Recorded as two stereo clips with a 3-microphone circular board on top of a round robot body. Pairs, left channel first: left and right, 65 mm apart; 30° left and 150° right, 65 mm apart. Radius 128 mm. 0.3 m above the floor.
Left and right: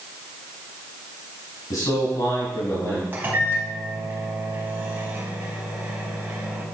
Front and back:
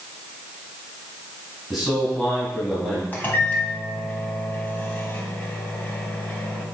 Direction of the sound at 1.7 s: 110° left.